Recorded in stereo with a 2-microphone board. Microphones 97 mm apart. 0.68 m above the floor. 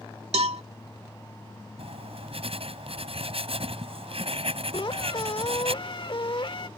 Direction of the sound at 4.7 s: 55° left (ahead or behind).